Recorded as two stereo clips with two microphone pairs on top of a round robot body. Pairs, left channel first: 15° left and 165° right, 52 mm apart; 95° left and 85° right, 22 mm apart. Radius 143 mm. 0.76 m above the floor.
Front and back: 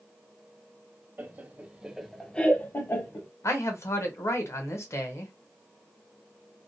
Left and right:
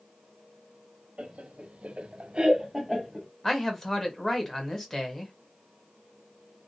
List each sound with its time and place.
1.2 s laughter: 115° right, 1.0 m; by 3.3 s 5° left, 1.0 m
3.4 s a man speaking: 30° left, 1.1 m